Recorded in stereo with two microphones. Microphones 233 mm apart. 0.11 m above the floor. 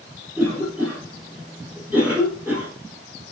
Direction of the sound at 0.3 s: 10° right (ahead or behind).